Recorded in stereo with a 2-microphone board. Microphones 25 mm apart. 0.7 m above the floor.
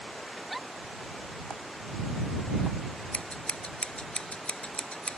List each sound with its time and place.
0.4 s a giggle: 5° right (ahead or behind)
3.1 s scissors: 55° left (ahead or behind)